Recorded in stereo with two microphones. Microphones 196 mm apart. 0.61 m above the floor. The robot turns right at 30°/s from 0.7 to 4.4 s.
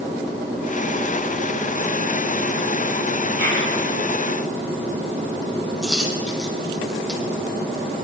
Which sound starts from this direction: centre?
A dropped coin, at 5.8 s.